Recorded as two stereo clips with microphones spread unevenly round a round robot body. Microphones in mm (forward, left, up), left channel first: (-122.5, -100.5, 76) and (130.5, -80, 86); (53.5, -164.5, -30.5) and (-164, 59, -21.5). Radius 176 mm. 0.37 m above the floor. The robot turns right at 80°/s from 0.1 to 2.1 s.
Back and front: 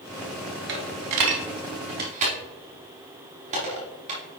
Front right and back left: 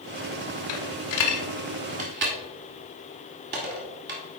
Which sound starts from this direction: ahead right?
A dropped coin, at 0.7 s.